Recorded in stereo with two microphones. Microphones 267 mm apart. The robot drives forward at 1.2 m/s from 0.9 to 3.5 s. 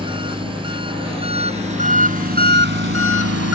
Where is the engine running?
20° right (ahead or behind); by 3.5 s 60° right (ahead or behind).